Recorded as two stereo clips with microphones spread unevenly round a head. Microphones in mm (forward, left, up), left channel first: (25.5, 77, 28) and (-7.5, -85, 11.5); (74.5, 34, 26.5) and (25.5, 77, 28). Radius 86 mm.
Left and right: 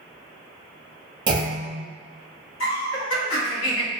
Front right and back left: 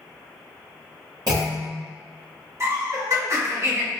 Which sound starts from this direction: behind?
A clunk, at 1.3 s.